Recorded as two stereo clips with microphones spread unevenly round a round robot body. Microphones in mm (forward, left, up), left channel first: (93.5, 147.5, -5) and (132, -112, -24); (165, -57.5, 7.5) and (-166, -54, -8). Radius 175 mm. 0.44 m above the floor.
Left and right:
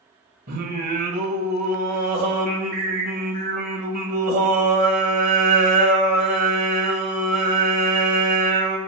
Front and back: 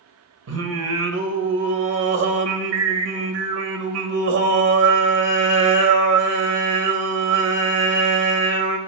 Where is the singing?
145° right, 1.5 m.